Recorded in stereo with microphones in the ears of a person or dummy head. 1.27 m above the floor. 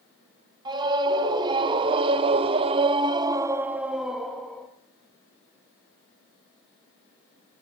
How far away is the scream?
About 1.6 m.